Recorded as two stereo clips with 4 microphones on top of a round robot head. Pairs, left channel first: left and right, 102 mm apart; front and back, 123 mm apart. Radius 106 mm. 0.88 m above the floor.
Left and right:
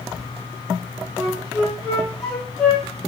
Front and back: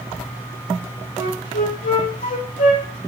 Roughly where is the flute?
Ahead.